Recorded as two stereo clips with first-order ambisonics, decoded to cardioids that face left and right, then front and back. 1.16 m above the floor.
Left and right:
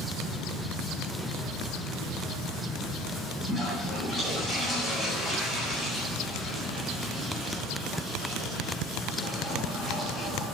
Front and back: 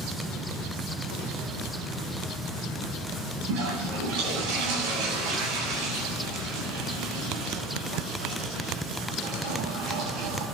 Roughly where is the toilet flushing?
Behind.